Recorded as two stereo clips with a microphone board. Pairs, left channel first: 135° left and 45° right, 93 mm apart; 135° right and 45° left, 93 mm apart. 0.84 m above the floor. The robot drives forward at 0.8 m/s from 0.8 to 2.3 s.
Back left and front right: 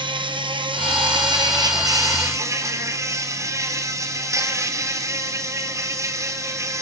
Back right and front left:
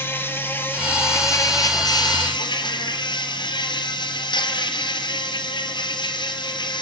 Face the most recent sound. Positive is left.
turn(degrees=-100)